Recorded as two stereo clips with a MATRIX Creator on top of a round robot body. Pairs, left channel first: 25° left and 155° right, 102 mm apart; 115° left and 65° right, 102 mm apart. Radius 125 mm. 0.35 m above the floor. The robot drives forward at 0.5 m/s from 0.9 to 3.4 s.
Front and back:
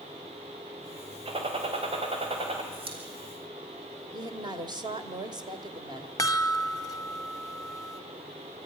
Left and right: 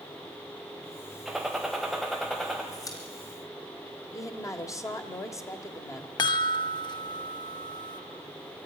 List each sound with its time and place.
1.2 s a gunshot: 155° right, 3 m; by 2.6 s 160° right, 3.5 m
2.7 s a pop: 170° left, 3.5 m
4.1 s a woman speaking: 165° left, 1.8 m
6.2 s a chime: 70° left, 0.8 m